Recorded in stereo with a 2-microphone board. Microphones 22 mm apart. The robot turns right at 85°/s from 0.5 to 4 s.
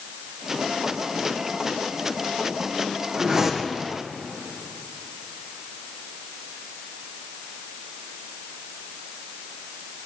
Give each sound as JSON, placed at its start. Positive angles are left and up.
{"t": 3.2, "sound": "a whoosh", "azimuth_deg": -35, "distance_m": 2.5}